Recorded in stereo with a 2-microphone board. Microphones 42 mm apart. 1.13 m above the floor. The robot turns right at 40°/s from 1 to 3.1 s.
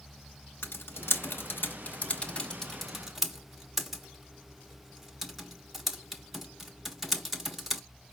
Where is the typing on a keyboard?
70° left (ahead or behind), 1.1 m; by 7.8 s 5° right (ahead or behind), 1.1 m.